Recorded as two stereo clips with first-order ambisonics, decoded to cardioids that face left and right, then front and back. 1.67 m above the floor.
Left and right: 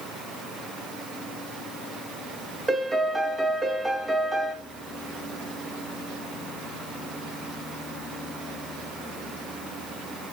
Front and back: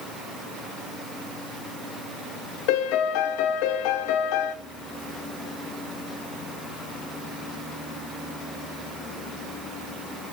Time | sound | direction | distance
2.7 | a piano | 5° right | 0.8 m